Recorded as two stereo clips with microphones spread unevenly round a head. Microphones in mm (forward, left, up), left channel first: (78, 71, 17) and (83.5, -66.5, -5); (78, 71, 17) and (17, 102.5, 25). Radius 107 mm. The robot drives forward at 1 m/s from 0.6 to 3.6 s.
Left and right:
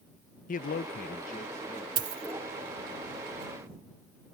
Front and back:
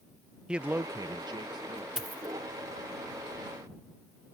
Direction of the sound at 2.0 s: 140° right.